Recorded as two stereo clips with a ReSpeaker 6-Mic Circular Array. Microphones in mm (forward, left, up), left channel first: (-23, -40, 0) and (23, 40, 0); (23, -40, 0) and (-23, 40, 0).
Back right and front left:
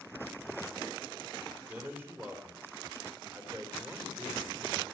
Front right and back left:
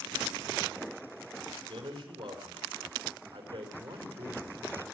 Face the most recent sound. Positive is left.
turn(degrees=125)